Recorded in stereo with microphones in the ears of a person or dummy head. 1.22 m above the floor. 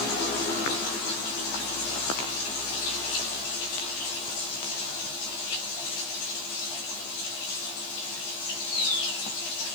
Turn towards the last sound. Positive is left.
No sound to turn to.